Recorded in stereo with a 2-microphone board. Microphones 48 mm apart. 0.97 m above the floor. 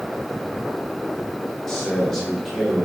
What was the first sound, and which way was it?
A man speaking, 10° left (ahead or behind).